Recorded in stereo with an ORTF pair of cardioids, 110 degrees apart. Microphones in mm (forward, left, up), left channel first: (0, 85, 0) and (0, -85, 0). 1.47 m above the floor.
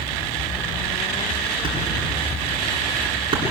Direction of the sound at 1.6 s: 30° right.